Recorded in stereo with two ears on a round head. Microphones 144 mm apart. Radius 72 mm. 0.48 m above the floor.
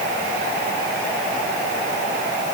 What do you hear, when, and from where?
Only background noise.